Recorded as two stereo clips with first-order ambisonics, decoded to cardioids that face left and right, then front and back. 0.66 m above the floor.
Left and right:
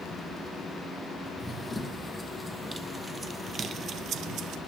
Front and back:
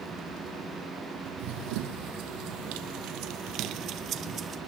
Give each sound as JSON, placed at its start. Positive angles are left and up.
{"t": 1.4, "sound": "running footsteps", "azimuth_deg": 175, "distance_m": 1.8}